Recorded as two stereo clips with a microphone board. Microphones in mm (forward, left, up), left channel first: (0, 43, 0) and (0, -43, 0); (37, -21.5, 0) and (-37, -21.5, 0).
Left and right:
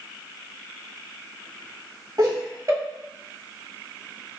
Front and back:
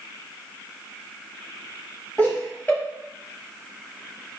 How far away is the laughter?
About 1.6 m.